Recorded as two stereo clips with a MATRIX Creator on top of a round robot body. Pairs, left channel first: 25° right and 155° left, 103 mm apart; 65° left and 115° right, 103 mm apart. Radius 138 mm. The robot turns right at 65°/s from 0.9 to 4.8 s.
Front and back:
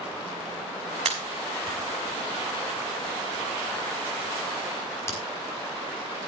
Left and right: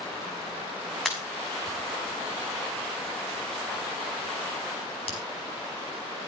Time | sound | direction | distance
1.1 | a pop | 155° left | 6 m